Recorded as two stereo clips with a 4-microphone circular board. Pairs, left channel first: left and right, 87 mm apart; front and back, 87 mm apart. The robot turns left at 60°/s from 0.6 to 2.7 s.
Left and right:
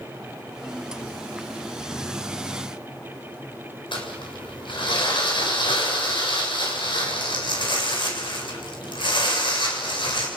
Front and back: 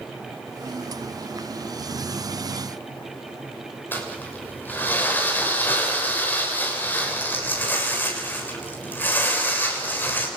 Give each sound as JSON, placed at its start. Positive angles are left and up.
{"t": 3.9, "sound": "crumpling", "azimuth_deg": 70, "distance_m": 7.0}